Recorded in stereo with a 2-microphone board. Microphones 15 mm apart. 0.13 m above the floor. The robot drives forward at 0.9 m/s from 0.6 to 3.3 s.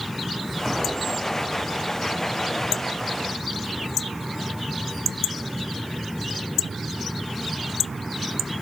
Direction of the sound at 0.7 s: 10° right (ahead or behind).